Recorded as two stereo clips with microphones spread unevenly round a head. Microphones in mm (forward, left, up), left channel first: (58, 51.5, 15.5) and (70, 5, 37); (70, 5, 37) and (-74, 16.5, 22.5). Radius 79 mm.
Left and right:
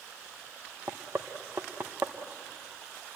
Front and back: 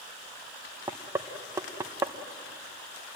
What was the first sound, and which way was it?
Knocking, 110° right.